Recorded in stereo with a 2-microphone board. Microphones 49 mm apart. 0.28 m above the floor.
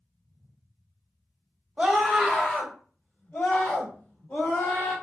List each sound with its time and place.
1.8 s a scream: 15° right (ahead or behind), 1.7 m; by 4.9 s 60° left (ahead or behind), 2.5 m